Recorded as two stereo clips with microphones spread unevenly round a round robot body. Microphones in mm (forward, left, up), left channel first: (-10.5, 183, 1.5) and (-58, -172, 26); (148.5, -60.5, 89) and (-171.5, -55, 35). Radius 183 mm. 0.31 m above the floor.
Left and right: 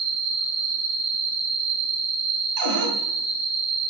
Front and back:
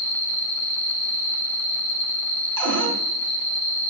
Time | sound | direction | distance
0.0 | an insect | 50° right | 2.5 m
2.6 | a cupboard door | 150° right | 4 m